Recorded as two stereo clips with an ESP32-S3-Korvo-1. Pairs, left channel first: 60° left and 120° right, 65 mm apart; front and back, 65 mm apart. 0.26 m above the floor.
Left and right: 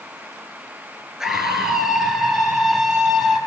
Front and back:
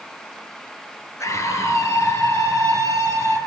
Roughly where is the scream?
Ahead right.